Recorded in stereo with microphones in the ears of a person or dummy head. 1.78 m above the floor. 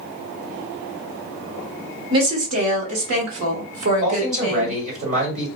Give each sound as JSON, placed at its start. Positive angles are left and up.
{"t": 2.1, "sound": "a woman speaking", "side_deg": -30, "distance_m": 1.3}
{"t": 4.0, "sound": "a man speaking", "side_deg": -40, "distance_m": 1.7}